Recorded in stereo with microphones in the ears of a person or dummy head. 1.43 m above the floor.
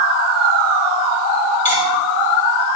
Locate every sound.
1.6 s cutlery clinking: 35° left (ahead or behind), 2.5 m